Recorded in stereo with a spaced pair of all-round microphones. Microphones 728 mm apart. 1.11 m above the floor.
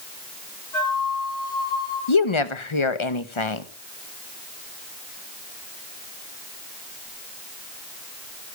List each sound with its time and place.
0.7 s a flute: 65° left (ahead or behind), 9 m
2.1 s a woman speaking: 40° left (ahead or behind), 1.2 m